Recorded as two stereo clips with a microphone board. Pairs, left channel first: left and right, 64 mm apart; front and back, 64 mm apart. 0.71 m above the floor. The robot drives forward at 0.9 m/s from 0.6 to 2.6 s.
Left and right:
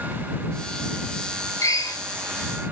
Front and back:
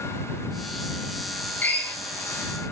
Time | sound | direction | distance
1.6 | a drill | 65° left | 3 m